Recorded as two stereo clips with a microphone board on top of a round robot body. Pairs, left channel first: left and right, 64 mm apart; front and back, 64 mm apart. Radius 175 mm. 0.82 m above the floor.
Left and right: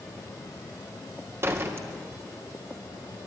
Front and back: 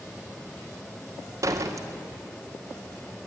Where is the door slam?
140° right, 2 m.